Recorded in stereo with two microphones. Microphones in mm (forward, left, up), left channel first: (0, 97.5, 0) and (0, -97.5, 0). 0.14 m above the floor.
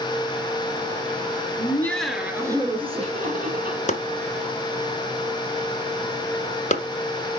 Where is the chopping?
40° left (ahead or behind), 1.0 m.